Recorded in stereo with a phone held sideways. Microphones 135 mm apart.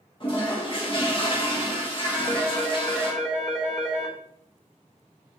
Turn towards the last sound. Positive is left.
turn(degrees=0)  # may be behind; listen again after turning